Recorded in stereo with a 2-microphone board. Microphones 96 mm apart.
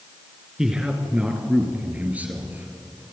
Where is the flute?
No flute in this recording.